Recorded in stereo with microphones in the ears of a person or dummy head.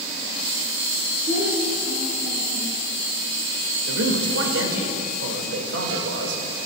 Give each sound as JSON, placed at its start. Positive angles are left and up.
{"t": 1.3, "sound": "a child speaking", "side_deg": -65, "distance_m": 4.5}
{"t": 3.9, "sound": "a man speaking", "side_deg": -85, "distance_m": 2.5}